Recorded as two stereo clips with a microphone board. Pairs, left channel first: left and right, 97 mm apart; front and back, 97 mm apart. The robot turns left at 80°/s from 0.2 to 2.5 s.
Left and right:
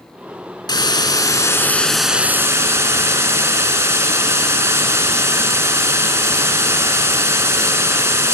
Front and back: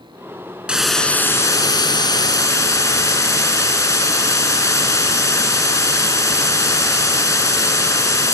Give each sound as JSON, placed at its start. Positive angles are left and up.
{"t": 0.7, "sound": "a hiss", "azimuth_deg": 105, "distance_m": 1.6}